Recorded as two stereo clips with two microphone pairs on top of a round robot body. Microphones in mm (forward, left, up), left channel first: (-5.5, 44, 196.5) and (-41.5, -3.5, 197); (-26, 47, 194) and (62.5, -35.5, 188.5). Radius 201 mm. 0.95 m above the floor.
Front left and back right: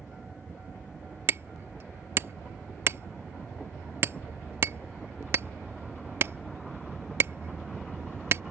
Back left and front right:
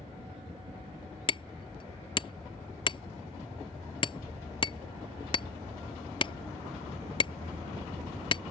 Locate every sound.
1.3 s hammering: 175° right